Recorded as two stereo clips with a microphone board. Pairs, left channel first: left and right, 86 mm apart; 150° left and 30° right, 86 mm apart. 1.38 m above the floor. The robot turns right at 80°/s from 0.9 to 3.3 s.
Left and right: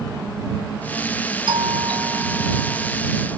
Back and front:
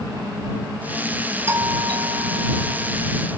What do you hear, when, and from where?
1.5 s a doorbell: 90° right; by 3.0 s 30° left